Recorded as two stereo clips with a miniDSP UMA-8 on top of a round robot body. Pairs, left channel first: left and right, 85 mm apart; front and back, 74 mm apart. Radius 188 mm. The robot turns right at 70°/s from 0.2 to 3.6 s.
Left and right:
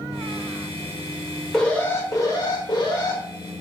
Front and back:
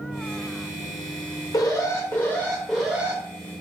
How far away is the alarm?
About 1.8 m.